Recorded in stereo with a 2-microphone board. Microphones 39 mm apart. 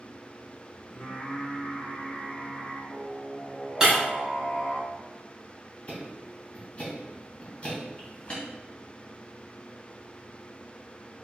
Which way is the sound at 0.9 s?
30° left (ahead or behind).